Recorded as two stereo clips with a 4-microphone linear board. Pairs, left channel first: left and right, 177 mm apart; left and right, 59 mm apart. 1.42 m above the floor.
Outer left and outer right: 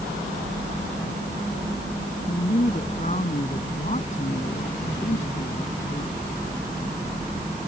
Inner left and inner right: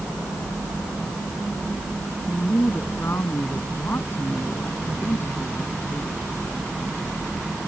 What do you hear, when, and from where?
2.3 s a woman speaking: 45° left (ahead or behind)